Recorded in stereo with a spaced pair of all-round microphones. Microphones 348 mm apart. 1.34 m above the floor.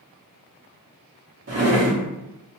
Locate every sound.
1.5 s a drawer: 45° right (ahead or behind), 0.6 m